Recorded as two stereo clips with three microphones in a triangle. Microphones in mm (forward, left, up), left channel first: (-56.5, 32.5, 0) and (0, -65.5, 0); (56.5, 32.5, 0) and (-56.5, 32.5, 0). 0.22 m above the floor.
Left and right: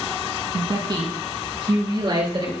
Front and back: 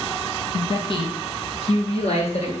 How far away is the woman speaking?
About 1.8 m.